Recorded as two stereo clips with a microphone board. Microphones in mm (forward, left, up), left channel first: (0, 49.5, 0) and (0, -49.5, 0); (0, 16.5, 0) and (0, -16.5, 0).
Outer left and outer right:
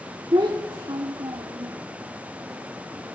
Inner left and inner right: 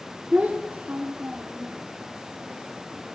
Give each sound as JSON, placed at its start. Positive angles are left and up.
{"t": 0.3, "sound": "a child speaking", "side_deg": -50, "distance_m": 1.5}